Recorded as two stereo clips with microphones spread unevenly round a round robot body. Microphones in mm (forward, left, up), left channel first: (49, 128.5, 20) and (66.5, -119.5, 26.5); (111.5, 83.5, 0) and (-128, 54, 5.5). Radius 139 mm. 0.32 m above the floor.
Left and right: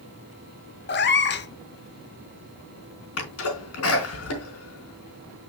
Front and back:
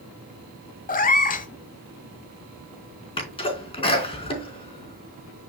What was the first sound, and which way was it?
A cat meowing, 55° left.